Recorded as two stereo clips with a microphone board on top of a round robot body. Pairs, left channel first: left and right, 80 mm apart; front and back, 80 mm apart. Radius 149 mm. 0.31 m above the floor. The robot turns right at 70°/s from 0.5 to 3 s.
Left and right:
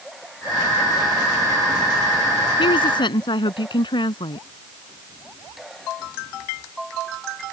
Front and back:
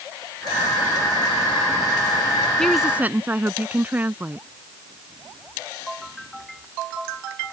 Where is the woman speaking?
80° left; by 4.5 s 110° left.